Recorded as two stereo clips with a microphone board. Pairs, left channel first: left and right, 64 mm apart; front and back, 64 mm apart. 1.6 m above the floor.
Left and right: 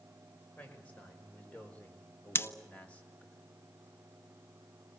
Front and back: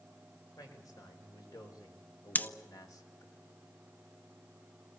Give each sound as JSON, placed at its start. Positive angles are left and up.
{"t": 0.6, "sound": "a man speaking", "azimuth_deg": 25, "distance_m": 6.0}
{"t": 2.4, "sound": "scissors", "azimuth_deg": 55, "distance_m": 0.8}